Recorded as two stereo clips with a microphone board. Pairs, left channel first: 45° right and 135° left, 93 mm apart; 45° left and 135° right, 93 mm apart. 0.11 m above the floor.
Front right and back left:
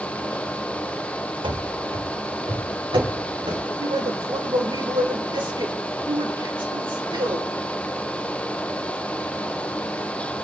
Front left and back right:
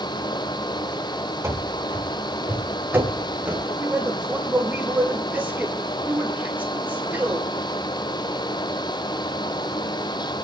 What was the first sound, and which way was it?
Running footsteps, 165° left.